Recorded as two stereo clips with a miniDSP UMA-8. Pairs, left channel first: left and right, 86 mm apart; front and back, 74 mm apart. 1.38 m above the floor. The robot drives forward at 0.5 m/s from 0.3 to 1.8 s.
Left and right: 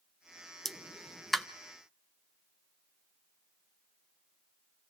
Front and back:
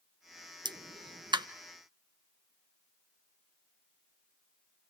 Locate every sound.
0.7 s a pop: straight behind, 0.6 m